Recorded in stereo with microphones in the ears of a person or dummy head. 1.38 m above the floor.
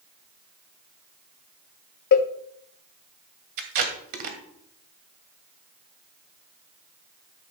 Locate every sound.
2.1 s a cowbell: 50° left (ahead or behind), 0.6 m
3.6 s tape being pulled: 50° right (ahead or behind), 1.8 m